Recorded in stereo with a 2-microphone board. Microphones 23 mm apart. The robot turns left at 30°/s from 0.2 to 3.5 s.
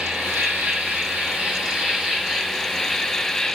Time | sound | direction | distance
0.0 | an insect | 95° right | 6.5 m